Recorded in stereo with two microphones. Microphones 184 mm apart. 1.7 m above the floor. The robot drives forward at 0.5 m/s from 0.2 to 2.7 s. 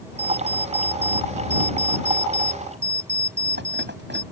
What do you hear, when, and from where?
0.2 s an alarm clock: 60° right (ahead or behind); by 4.2 s 70° right (ahead or behind)